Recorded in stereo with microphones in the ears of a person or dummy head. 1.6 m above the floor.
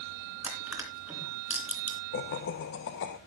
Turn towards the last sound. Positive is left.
turn(degrees=60)  # may be behind; listen again after turning